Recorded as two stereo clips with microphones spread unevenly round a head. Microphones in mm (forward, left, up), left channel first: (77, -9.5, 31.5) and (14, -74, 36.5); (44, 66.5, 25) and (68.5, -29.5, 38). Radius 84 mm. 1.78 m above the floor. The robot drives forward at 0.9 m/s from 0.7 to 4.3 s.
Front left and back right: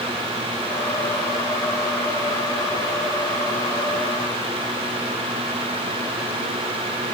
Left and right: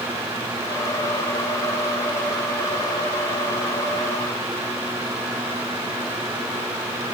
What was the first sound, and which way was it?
Only background noise.